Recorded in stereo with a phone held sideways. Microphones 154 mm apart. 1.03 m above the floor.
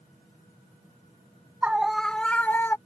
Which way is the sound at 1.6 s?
10° right (ahead or behind).